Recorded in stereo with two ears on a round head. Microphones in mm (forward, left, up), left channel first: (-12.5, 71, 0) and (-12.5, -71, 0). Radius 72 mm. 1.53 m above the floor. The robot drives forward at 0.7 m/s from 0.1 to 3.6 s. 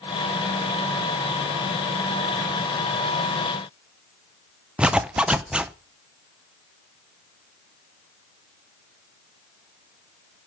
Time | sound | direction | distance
4.8 | a zipper | 5° right (ahead or behind) | 0.5 m